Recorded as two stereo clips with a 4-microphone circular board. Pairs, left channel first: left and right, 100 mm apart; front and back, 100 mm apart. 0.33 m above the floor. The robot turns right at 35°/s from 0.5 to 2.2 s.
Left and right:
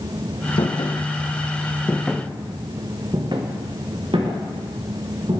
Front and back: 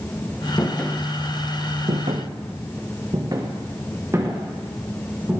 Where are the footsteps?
60° left, 2.5 m; by 5.4 s 110° right, 4.5 m.